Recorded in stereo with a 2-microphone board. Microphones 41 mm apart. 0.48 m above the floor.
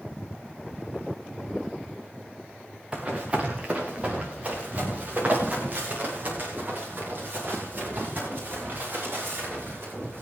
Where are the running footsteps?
20° right (ahead or behind), 3 m; by 10.2 s 45° right (ahead or behind), 11.5 m.